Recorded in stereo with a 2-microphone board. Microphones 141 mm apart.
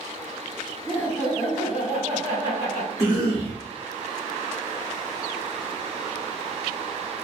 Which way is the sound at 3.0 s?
25° left (ahead or behind).